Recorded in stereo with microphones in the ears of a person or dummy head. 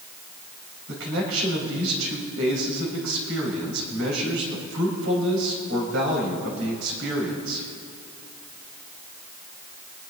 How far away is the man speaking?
About 5 m.